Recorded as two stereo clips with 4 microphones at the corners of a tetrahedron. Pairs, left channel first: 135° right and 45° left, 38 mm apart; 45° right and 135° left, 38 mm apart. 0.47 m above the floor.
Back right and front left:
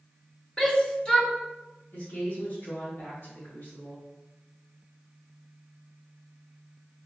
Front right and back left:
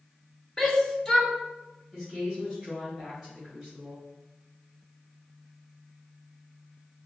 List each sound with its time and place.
0.6 s a shout: 105° right, 0.9 m
1.9 s a woman speaking: 145° right, 2 m